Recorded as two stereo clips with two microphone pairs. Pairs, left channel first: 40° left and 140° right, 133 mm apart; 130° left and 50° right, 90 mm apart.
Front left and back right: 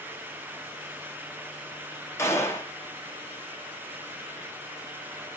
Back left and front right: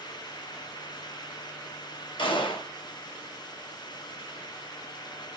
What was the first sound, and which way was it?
A gunshot, 110° left.